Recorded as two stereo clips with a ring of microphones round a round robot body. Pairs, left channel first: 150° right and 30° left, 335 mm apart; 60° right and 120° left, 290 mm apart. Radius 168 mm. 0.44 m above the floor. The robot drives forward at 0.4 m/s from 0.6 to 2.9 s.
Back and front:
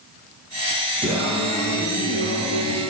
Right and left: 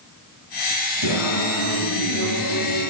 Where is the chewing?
No chewing in this recording.